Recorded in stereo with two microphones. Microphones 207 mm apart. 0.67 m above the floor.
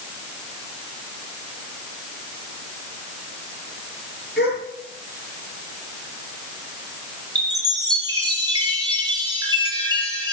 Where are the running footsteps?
No running footsteps in this recording.